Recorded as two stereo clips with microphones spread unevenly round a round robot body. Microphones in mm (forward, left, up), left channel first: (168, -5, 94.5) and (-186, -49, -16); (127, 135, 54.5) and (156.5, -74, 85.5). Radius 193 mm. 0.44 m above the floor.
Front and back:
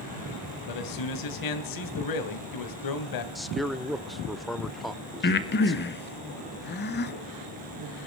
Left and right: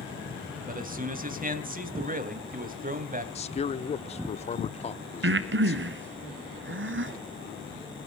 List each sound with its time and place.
0.7 s a man speaking: 30° right, 3 m
3.4 s a man speaking: 120° left, 0.9 m
5.2 s breathing: 55° right, 1.4 m